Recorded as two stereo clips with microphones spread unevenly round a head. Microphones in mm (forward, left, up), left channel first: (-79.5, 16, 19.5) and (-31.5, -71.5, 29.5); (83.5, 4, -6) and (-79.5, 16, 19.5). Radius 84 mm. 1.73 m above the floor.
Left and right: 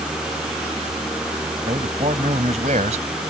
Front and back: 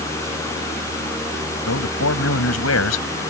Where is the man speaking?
10° right.